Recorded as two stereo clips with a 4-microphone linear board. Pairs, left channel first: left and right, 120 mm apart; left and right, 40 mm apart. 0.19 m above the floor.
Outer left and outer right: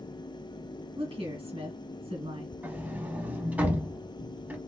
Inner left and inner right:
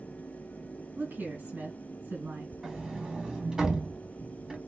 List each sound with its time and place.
1.0 s a woman speaking: 50° right (ahead or behind), 2.5 m
2.6 s a sliding door: 15° right (ahead or behind), 0.9 m